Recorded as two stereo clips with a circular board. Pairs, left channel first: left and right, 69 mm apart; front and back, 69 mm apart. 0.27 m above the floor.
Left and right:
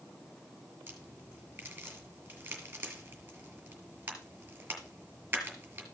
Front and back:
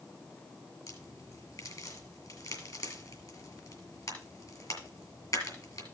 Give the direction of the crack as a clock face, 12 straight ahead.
1 o'clock.